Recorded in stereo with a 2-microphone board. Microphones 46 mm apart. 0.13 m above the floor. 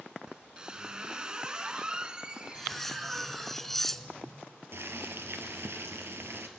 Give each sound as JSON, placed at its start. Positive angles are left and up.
{"t": 0.3, "sound": "a squeak", "side_deg": -20, "distance_m": 0.7}
{"t": 2.5, "sound": "cutlery clinking", "side_deg": 5, "distance_m": 0.7}
{"t": 4.7, "sound": "boiling", "side_deg": -60, "distance_m": 1.7}